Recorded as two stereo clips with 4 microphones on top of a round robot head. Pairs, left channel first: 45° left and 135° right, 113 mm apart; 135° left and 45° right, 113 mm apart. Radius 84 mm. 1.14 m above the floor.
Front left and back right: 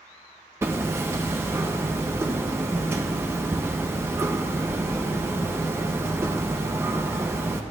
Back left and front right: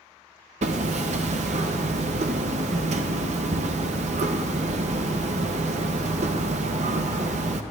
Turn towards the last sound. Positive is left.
turn(degrees=-65)